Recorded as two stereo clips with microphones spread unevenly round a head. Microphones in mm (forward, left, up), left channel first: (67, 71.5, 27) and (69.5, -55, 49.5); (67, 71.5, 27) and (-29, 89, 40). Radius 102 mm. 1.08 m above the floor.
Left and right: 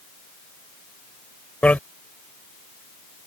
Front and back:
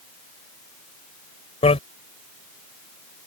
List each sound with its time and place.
1.6 s a bicycle bell: 10° left